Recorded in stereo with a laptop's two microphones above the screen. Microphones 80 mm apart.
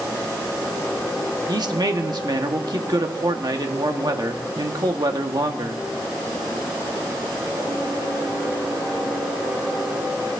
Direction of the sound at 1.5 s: 60° right (ahead or behind).